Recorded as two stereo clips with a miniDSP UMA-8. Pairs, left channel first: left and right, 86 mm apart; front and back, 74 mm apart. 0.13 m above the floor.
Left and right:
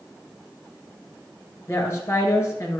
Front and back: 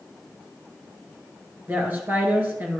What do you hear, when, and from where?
1.7 s a woman speaking: 135° left, 2.0 m